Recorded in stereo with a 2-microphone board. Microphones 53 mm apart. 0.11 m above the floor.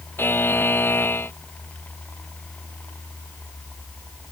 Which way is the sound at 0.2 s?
45° left (ahead or behind).